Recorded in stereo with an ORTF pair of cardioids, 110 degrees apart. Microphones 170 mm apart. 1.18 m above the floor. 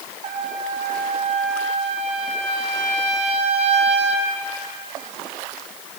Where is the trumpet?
40° right, 3.5 m.